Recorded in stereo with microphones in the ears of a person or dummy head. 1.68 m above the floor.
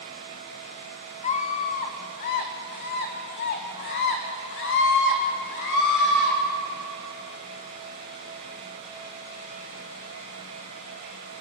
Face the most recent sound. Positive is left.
turn(degrees=65)  # may be behind; listen again after turning